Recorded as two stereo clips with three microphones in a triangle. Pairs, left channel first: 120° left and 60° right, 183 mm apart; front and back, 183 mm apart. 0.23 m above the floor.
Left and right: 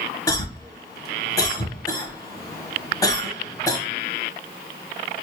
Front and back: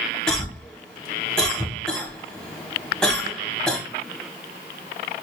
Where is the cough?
80° left, 1.0 m.